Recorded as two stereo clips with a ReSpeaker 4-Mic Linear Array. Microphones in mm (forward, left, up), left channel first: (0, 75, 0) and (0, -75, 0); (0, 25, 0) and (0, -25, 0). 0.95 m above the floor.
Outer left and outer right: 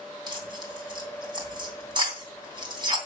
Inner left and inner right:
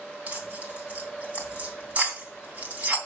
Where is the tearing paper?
30° right (ahead or behind), 3 m.